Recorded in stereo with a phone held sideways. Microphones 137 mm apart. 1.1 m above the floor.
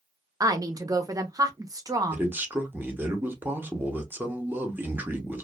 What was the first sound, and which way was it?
A woman speaking, 25° right (ahead or behind).